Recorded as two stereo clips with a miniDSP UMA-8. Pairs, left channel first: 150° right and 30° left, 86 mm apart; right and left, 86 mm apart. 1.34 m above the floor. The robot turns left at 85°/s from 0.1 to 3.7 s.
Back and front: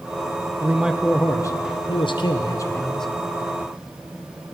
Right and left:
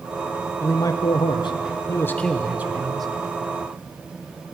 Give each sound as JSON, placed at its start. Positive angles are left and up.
{"t": 0.6, "sound": "a man speaking", "azimuth_deg": -30, "distance_m": 1.0}